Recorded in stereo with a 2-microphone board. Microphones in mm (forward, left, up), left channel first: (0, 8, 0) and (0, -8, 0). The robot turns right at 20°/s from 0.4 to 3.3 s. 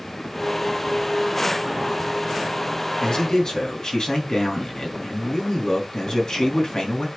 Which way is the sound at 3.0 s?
60° left (ahead or behind).